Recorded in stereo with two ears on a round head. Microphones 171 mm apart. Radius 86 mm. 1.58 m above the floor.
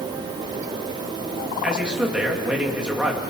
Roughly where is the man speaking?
Centre.